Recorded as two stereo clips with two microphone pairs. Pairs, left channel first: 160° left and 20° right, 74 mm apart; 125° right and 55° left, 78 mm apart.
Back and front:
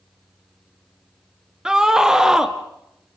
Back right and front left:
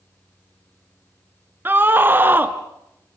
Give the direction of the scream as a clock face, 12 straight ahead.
10 o'clock.